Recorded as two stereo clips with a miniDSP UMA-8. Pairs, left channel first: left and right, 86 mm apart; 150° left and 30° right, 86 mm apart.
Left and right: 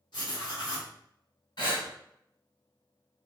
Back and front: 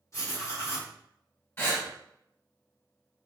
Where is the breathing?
90° left, 2.0 m.